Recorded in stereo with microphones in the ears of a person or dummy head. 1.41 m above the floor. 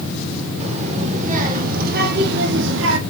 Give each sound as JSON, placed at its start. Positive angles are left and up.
{"t": 0.6, "sound": "a child speaking", "side_deg": -35, "distance_m": 3.0}